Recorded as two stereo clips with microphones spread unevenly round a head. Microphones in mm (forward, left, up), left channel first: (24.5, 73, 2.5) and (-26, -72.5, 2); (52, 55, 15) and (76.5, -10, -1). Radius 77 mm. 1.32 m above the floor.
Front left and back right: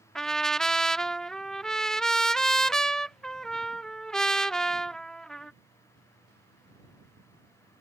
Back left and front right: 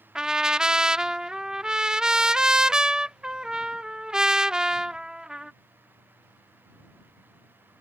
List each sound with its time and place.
0.1 s a trumpet: 15° right